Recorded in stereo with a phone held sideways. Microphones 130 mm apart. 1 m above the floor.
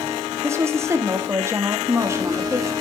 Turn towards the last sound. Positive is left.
turn(degrees=-20)  # may be behind; listen again after turning